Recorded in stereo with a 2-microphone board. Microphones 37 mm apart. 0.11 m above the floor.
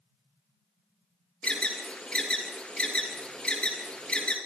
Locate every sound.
1.4 s an alarm: 25° left (ahead or behind), 3 m